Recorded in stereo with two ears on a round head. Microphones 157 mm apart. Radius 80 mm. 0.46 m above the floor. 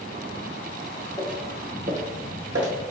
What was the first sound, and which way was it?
Footsteps, centre (ahead or behind).